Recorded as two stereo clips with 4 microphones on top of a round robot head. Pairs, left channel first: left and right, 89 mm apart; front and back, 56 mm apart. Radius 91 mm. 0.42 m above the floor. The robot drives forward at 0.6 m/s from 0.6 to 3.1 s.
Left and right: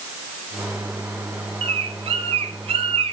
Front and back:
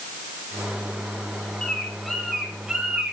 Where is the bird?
75° right, 2 m; by 3.1 s 100° right, 2 m.